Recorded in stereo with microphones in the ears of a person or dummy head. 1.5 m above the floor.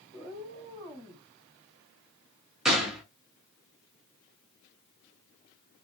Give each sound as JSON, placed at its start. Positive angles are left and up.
{"t": 0.1, "sound": "a cat meowing", "side_deg": -5, "distance_m": 1.0}
{"t": 2.6, "sound": "a gunshot", "side_deg": -5, "distance_m": 0.8}